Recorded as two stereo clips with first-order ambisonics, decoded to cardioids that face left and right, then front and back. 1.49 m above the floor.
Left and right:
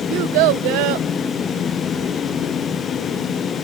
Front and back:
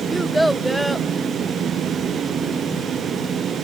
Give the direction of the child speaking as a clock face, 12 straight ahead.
3 o'clock.